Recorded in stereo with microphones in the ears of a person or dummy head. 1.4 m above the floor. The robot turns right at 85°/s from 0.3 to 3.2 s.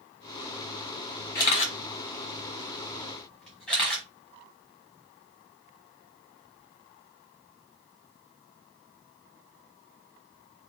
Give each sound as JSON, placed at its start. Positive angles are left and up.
{"t": 1.4, "sound": "a camera shutter", "side_deg": 20, "distance_m": 1.2}